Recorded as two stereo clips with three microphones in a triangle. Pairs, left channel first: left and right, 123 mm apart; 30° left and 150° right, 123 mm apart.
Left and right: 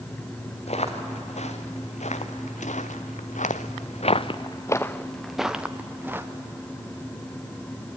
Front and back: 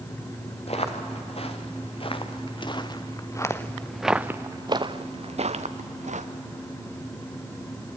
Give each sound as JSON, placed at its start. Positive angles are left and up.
{"t": 0.7, "sound": "footsteps", "azimuth_deg": 60, "distance_m": 3.0}